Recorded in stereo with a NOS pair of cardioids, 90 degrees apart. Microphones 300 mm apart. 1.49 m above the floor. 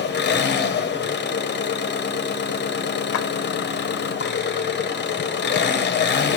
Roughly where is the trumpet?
No trumpet in this recording.